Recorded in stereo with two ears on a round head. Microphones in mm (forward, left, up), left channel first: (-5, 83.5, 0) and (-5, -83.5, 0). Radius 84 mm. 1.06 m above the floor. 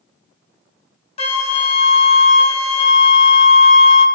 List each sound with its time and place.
1.2 s a flute: 35° left (ahead or behind), 0.7 m